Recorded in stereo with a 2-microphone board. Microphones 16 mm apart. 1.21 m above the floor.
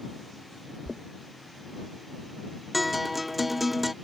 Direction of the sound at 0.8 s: 40° right (ahead or behind).